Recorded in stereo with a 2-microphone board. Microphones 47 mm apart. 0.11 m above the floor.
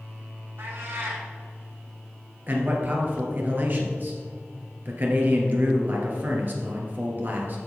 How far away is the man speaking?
About 2 m.